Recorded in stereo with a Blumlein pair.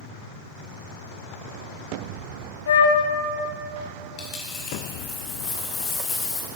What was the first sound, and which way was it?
A flute, 60° left.